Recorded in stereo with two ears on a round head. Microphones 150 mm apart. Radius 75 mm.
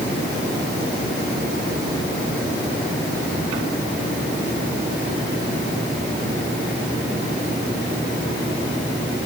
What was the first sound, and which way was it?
Only background noise.